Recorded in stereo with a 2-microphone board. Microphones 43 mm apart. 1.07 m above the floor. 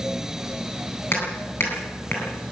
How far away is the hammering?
About 9.5 m.